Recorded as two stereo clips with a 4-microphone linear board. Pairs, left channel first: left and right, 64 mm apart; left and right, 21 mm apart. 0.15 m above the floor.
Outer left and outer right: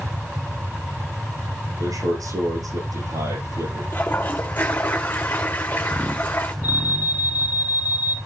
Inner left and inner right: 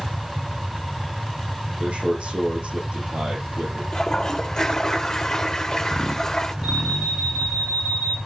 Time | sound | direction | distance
1.8 | a man speaking | 65° right (ahead or behind) | 8.5 m
3.9 | a toilet flushing | 30° left (ahead or behind) | 1.9 m
6.6 | an alarm | 55° right (ahead or behind) | 5 m